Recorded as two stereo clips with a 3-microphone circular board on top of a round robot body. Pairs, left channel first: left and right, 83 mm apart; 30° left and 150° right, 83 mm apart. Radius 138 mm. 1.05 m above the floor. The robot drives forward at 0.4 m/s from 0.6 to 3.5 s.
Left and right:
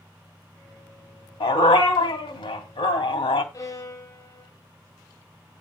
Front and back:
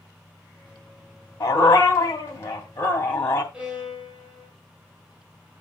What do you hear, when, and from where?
1.4 s a dog barking: 80° left, 3 m; by 3.4 s 100° left, 3 m
3.5 s a violin: 130° left, 5 m